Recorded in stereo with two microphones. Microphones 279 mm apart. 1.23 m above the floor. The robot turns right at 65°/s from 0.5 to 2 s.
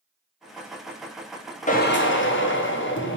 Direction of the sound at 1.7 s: 25° left (ahead or behind).